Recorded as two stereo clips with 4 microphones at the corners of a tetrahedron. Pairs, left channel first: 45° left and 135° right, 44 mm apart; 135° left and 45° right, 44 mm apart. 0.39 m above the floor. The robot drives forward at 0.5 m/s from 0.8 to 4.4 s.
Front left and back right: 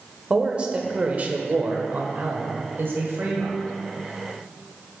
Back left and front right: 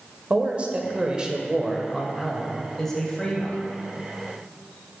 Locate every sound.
0.3 s a man speaking: 90° right, 1.0 m; by 3.6 s 155° right, 1.7 m